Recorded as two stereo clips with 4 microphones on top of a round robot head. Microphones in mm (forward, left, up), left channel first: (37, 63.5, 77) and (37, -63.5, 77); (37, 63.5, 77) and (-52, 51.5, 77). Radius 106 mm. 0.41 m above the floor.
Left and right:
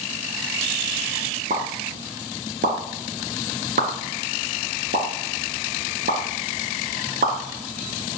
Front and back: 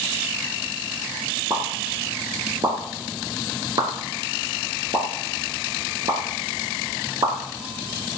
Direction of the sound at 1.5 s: 115° right.